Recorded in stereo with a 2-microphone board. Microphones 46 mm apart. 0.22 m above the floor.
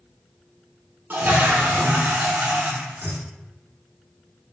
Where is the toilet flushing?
50° right (ahead or behind), 0.6 m.